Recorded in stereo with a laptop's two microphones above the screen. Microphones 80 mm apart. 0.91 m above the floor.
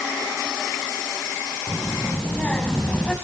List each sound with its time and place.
1.7 s a child speaking: 20° left (ahead or behind), 5.5 m; by 3.1 s 5° left (ahead or behind), 4 m